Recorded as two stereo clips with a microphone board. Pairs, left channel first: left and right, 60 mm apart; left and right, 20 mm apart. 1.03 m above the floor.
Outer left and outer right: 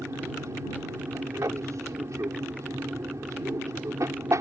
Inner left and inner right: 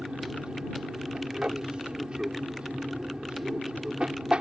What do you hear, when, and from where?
0.0 s an aircraft: 60° right (ahead or behind)